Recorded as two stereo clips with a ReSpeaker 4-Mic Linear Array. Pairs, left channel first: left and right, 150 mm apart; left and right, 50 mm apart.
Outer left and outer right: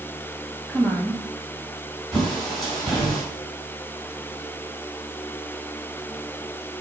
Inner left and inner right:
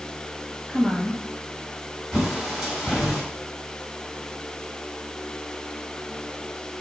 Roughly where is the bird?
Centre.